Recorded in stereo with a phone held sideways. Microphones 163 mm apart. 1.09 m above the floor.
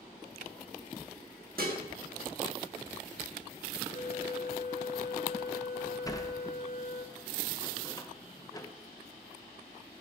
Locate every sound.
1.6 s dishes clattering: 65° right (ahead or behind), 1.2 m
3.9 s a flute: 55° left (ahead or behind), 0.6 m
6.0 s a sliding door: 20° left (ahead or behind), 0.6 m